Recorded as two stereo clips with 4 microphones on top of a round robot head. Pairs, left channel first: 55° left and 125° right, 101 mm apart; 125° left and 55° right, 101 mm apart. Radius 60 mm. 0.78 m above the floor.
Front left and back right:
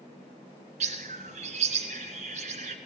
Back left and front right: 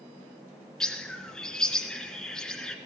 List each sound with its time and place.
0.8 s a bird: 145° right, 2 m